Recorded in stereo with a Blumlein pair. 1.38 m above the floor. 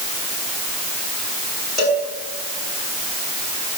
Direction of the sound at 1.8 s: 20° left.